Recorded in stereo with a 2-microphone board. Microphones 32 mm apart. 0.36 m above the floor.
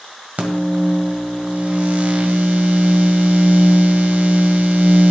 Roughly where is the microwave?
Right.